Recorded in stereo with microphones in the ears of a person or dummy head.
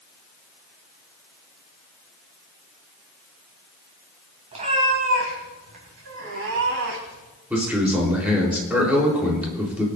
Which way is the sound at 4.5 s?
40° right (ahead or behind).